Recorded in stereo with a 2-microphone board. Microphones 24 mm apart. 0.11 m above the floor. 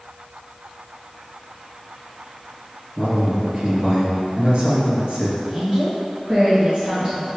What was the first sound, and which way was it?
A man speaking, 45° right (ahead or behind).